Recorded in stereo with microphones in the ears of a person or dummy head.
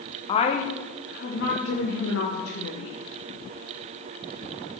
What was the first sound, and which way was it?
A woman speaking, 25° left (ahead or behind).